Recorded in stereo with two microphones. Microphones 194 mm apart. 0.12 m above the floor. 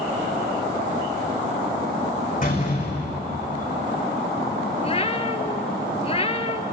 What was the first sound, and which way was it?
A door slam, 45° left (ahead or behind).